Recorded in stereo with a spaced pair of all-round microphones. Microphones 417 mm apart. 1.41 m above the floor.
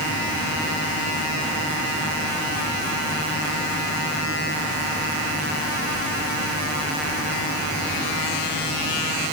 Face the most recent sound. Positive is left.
No sound to turn to.